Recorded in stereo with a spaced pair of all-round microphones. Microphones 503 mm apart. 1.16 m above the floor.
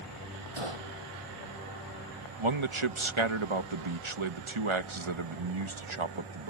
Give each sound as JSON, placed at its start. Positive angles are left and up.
{"t": 0.6, "sound": "a gunshot", "side_deg": -85}
{"t": 2.4, "sound": "a man speaking", "side_deg": -70}